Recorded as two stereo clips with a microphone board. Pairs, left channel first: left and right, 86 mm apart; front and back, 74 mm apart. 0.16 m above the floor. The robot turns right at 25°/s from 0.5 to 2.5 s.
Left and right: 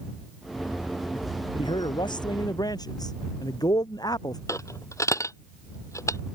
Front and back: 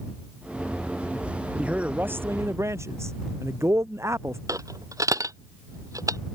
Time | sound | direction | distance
1.6 | a man speaking | 105° left | ?
4.5 | a dropped coin | 140° left | ?